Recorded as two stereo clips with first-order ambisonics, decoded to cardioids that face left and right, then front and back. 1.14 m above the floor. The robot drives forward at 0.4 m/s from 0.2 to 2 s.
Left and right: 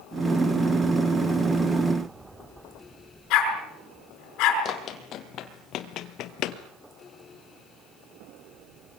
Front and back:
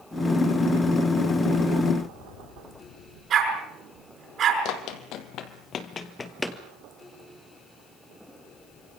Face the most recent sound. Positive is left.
turn(degrees=90)